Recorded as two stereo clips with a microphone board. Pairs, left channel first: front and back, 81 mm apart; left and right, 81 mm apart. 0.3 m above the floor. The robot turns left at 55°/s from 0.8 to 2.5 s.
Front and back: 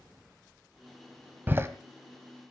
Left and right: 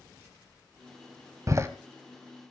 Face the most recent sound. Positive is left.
turn(degrees=180)